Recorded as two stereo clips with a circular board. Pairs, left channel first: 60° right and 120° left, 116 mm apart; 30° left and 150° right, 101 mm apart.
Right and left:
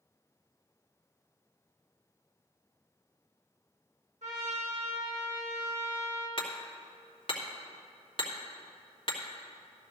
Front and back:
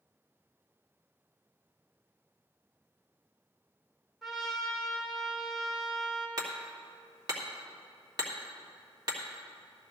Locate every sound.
4.2 s a trumpet: 120° left, 2 m
6.4 s hammering: 100° right, 1.8 m